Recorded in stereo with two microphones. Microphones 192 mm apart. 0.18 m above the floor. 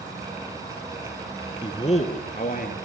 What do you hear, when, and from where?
1.6 s a man speaking: 25° left (ahead or behind), 1.7 m; by 2.7 s 50° left (ahead or behind), 3 m